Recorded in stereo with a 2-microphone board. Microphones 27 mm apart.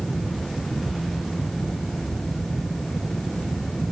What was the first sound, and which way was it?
Only background noise.